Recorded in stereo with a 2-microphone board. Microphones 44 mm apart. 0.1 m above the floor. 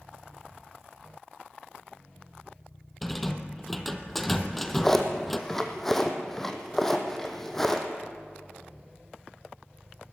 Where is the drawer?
5° left (ahead or behind), 2.0 m.